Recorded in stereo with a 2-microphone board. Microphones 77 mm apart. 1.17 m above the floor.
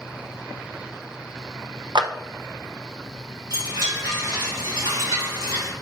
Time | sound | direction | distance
1.9 | a clap | 80° right | 0.7 m
3.5 | a chime | 75° right (ahead or behind) | 3 m